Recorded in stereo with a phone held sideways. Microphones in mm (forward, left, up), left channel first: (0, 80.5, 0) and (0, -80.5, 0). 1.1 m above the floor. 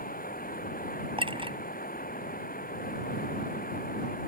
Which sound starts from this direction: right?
A clink, at 1.2 s.